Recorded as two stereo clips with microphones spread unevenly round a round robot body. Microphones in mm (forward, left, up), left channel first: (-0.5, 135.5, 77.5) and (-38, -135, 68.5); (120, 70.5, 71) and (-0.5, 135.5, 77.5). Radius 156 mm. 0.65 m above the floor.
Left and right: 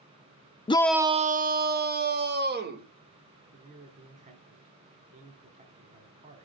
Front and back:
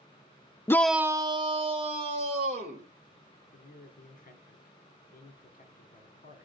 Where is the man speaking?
35° right, 1.9 m.